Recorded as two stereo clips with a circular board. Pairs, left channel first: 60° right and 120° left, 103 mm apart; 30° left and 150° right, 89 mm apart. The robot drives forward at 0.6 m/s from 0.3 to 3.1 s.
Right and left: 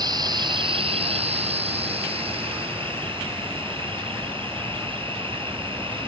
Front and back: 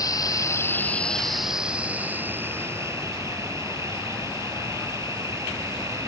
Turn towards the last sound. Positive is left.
turn(degrees=155)